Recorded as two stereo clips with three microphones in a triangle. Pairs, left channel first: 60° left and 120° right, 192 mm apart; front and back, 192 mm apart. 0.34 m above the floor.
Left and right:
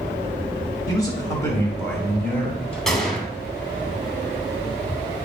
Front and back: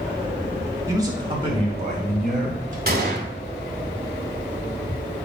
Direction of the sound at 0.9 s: 115° left.